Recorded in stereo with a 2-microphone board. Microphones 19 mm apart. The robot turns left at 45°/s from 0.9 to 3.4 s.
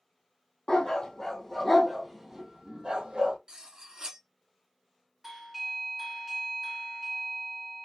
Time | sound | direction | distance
0.7 | a dog barking | 40° left (ahead or behind) | 1.7 m
3.5 | cutlery clinking | 35° right (ahead or behind) | 1.0 m
5.2 | a doorbell | 15° right (ahead or behind) | 1.8 m